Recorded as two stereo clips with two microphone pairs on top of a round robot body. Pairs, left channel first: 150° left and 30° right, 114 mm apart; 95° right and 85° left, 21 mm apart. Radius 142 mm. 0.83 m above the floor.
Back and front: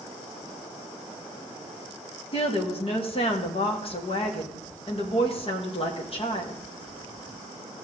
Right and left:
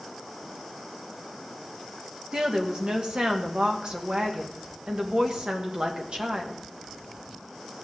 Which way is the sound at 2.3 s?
120° left.